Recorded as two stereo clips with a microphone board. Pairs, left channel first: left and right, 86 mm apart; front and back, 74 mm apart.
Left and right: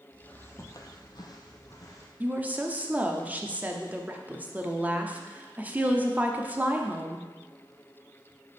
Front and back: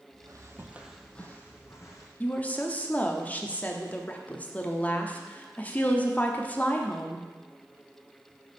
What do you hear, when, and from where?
0.1 s footsteps: 165° left, 1.1 m; by 2.1 s 40° left, 1.8 m
2.2 s a woman speaking: 40° right, 0.6 m